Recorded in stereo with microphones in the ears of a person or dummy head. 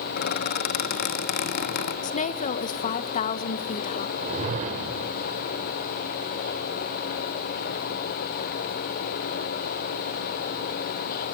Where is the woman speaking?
40° left (ahead or behind), 0.9 m.